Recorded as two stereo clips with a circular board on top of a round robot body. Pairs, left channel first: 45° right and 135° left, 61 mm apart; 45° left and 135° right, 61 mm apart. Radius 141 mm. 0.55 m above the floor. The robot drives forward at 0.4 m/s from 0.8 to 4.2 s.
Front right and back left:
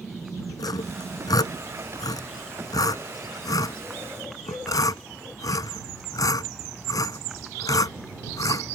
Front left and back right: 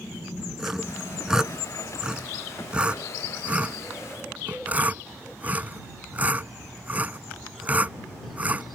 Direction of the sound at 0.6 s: 50° right.